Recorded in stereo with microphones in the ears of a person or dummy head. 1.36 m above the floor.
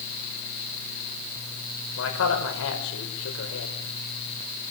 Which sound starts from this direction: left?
A man speaking, at 2.0 s.